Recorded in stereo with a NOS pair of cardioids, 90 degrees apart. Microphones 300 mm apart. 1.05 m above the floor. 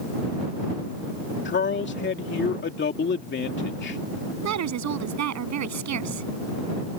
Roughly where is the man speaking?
Ahead left.